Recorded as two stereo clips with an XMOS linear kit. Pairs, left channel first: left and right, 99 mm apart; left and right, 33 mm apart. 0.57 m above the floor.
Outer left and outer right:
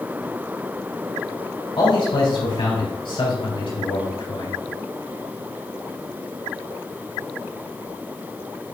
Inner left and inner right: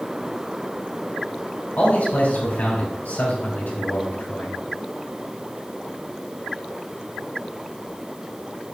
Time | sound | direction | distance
1.8 | a man speaking | 55° left (ahead or behind) | 3 m